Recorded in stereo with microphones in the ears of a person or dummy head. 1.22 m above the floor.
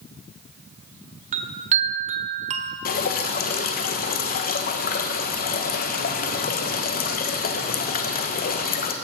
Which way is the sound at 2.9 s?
50° left (ahead or behind).